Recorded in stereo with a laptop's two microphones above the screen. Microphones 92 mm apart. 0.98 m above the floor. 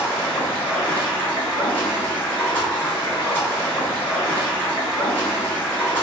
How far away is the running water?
About 1.2 m.